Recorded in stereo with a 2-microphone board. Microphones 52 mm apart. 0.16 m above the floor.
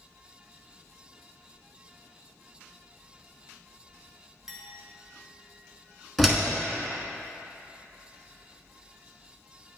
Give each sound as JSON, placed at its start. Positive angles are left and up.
{"t": 4.5, "sound": "a clink", "side_deg": -10, "distance_m": 1.2}
{"t": 6.2, "sound": "a door slam", "side_deg": 0, "distance_m": 1.1}